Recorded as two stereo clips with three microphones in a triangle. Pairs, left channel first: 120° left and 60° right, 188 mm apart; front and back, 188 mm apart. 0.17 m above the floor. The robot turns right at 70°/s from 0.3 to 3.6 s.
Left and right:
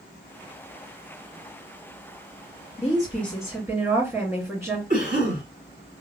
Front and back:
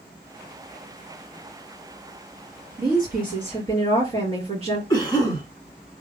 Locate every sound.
2.8 s a woman speaking: 170° left, 2.5 m; by 4.8 s 135° right, 2.5 m
4.9 s a cough: 60° right, 1.8 m